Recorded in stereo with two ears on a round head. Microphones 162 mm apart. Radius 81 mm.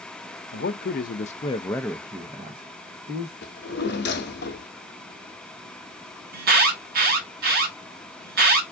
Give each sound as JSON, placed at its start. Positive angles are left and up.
{"t": 0.5, "sound": "a man speaking", "side_deg": 60, "distance_m": 0.7}
{"t": 3.4, "sound": "a drawer", "side_deg": 65, "distance_m": 0.7}
{"t": 6.3, "sound": "an alarm", "side_deg": -55, "distance_m": 1.0}